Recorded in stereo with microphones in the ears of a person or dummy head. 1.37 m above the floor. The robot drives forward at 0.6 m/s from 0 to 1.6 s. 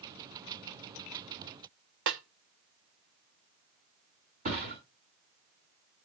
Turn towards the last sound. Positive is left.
turn(degrees=-45)  # may be behind; listen again after turning